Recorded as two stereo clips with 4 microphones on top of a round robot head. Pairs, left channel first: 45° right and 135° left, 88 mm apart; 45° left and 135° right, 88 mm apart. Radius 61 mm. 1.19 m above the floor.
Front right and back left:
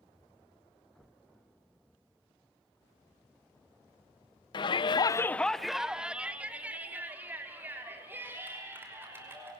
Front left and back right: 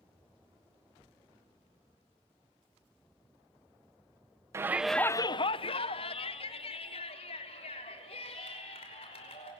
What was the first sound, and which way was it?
A shout, 75° right.